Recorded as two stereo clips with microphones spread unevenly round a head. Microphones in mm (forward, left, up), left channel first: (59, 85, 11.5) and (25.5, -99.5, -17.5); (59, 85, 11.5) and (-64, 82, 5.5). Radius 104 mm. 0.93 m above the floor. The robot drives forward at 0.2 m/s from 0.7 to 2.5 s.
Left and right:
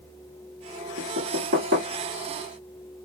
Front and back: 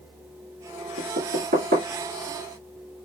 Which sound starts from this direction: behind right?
Knocking, at 1.0 s.